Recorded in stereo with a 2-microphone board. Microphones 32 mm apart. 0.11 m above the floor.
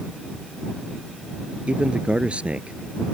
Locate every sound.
1.7 s a man speaking: 35° right (ahead or behind)